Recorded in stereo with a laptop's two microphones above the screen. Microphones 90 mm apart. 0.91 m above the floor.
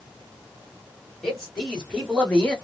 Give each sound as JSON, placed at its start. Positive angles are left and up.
{"t": 1.2, "sound": "a man speaking", "side_deg": 10, "distance_m": 2.5}